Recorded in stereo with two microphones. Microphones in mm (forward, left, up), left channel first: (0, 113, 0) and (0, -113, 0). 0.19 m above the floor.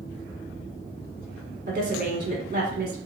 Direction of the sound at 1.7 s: 45° right (ahead or behind).